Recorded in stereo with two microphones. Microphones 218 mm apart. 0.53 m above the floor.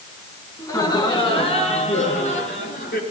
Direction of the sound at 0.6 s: 15° left (ahead or behind).